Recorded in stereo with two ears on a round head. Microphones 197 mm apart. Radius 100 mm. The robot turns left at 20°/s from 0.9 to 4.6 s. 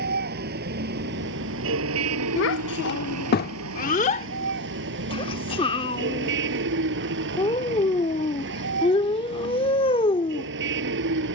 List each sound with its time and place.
0.0 s a vehicle: 45° right; by 11.3 s 120° right
2.4 s a child speaking: 60° left (ahead or behind); by 10.5 s 25° left (ahead or behind)